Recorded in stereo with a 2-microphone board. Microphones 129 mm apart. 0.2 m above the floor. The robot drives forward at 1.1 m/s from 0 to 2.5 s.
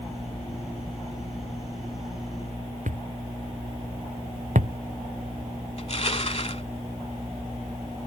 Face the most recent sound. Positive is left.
turn(degrees=55)  # may be behind; listen again after turning